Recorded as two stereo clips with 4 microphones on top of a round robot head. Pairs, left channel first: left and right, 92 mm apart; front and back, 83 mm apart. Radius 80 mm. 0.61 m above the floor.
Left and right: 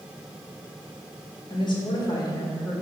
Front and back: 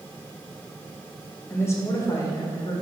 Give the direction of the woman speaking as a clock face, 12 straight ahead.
10 o'clock.